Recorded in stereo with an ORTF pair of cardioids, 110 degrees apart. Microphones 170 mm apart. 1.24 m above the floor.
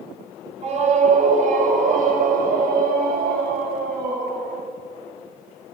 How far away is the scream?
About 4.5 m.